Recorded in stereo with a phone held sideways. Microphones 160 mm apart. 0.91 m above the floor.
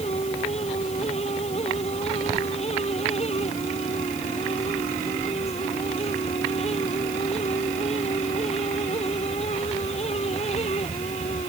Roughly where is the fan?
Left.